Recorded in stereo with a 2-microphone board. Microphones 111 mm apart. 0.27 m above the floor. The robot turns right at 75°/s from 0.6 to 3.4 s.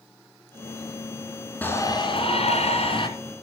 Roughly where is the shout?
Ahead.